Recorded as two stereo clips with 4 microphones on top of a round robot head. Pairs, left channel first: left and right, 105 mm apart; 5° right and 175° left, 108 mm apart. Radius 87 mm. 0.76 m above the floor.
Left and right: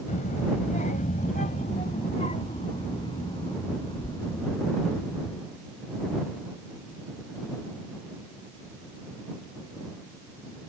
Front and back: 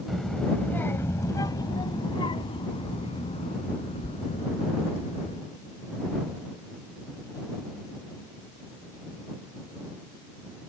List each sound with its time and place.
0.1 s a child speaking: 85° left; by 5.4 s 15° left